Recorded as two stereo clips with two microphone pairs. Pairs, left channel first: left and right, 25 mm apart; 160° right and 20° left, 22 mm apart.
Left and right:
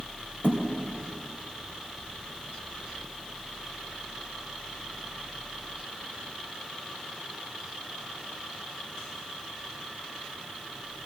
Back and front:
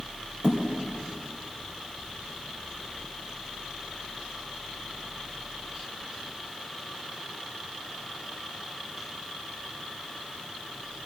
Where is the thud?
55° left, 3 m.